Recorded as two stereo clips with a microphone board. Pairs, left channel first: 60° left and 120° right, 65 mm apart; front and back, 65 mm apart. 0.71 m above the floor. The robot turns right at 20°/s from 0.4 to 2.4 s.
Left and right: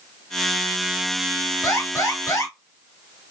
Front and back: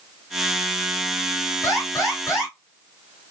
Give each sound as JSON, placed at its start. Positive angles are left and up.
{"t": 1.6, "sound": "an alarm", "azimuth_deg": 35, "distance_m": 3.5}